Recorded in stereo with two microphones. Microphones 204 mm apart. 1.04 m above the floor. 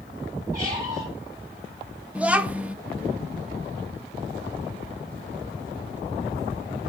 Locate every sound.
0.5 s a squeak: 15° right (ahead or behind), 7 m
2.1 s a child speaking: 5° right (ahead or behind), 0.6 m